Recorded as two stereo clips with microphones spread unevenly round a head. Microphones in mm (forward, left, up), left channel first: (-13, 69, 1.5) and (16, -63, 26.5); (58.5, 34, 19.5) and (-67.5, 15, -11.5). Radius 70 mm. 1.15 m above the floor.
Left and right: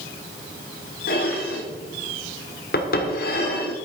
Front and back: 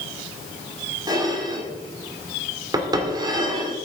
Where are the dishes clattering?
125° left, 2 m.